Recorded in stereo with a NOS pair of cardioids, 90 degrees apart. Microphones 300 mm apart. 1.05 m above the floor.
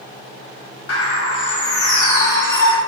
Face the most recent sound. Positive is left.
turn(degrees=50)